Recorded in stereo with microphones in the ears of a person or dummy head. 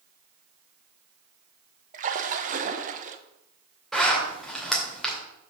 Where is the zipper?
Centre (ahead or behind), 2 m.